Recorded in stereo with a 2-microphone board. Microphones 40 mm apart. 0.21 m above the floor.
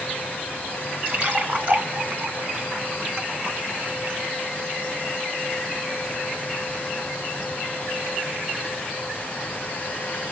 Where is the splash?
35° right (ahead or behind), 2 m.